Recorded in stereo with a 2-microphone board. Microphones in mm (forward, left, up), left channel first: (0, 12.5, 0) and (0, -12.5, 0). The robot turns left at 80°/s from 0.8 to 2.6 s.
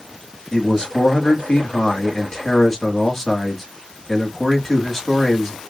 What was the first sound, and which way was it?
A man speaking, 150° left.